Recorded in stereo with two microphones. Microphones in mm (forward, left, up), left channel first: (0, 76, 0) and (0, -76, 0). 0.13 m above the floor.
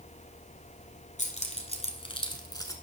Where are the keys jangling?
50° left (ahead or behind), 1.5 m; by 2.7 s 20° left (ahead or behind), 1.1 m.